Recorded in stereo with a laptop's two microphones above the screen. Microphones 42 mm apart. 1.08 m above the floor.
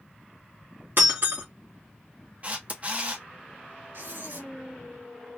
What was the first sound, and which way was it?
Breaking glass, 70° right (ahead or behind).